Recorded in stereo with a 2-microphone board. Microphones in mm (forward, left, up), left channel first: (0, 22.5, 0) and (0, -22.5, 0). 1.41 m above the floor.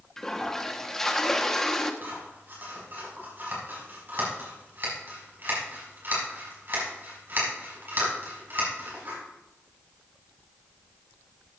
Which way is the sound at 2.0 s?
50° right (ahead or behind).